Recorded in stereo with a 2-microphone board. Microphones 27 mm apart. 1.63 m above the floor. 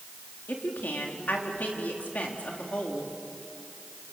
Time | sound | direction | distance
0.5 | a woman speaking | 80° left | 3.5 m